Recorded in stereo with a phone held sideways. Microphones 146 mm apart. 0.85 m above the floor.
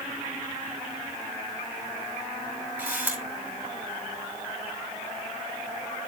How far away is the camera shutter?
About 5.5 m.